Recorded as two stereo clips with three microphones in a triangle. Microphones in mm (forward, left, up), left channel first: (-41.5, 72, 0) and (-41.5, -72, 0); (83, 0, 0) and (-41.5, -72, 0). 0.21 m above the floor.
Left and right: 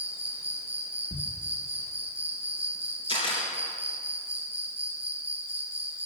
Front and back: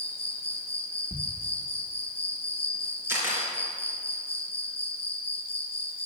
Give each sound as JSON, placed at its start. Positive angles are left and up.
{"t": 0.0, "sound": "an insect", "azimuth_deg": -10, "distance_m": 1.6}
{"t": 1.1, "sound": "a thud", "azimuth_deg": 80, "distance_m": 1.8}
{"t": 3.1, "sound": "a camera shutter", "azimuth_deg": 135, "distance_m": 4.0}